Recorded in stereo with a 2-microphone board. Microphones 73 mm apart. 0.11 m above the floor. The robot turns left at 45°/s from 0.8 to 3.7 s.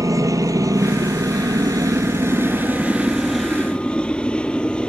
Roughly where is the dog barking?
I don't hear a dog barking.